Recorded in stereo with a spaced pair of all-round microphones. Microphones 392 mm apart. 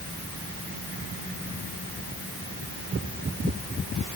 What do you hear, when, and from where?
Only background noise.